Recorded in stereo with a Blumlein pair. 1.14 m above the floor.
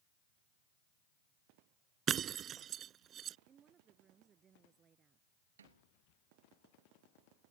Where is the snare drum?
65° right.